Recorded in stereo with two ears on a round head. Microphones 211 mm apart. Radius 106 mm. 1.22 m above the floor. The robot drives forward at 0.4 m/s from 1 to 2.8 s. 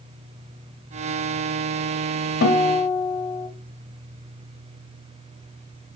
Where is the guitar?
45° left (ahead or behind), 1.5 m; by 3.5 s 40° left (ahead or behind), 1.5 m.